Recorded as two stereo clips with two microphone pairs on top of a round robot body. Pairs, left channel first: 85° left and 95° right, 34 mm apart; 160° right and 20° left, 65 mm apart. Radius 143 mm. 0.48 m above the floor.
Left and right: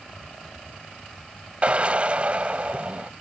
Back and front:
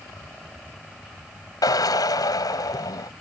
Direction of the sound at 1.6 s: 150° right.